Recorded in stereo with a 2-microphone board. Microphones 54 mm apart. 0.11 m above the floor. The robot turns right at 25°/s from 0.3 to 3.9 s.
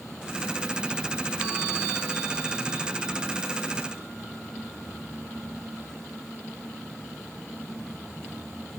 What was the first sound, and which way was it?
Only background noise.